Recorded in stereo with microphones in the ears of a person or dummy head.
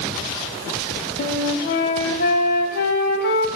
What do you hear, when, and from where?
1.2 s a flute: 55° left (ahead or behind), 2.5 m